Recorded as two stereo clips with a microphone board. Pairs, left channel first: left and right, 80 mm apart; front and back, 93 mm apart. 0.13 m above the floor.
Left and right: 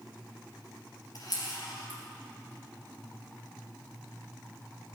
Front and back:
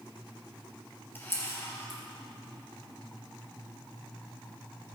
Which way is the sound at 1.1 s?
65° left.